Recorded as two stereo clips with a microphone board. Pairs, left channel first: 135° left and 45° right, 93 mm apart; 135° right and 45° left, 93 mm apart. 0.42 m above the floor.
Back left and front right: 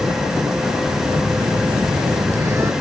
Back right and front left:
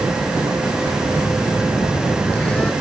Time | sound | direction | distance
1.1 | a phone buzzing | 70° right | ?